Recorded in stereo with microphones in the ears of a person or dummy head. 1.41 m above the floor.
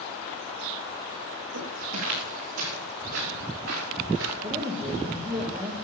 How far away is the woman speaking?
About 2 m.